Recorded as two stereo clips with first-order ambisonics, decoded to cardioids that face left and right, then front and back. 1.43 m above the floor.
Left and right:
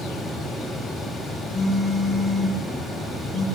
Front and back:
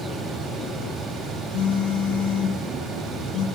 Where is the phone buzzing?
5° left, 9 m.